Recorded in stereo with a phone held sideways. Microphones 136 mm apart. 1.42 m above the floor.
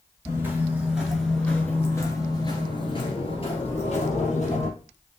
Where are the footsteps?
20° right (ahead or behind), 1.4 m; by 4.7 s 55° left (ahead or behind), 2.5 m.